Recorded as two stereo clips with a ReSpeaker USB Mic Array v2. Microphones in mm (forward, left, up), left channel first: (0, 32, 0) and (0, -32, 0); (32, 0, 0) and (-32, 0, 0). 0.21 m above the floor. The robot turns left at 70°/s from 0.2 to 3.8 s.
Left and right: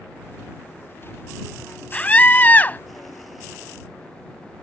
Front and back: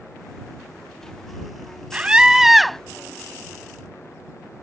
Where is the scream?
140° left; by 2.8 s 80° left.